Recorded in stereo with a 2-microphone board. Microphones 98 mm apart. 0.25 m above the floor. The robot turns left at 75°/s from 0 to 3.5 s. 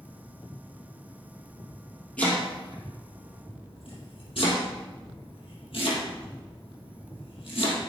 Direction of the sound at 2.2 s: 15° left (ahead or behind).